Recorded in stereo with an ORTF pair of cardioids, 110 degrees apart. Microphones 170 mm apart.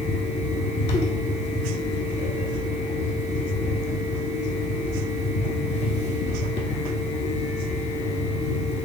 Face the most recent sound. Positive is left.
turn(degrees=40)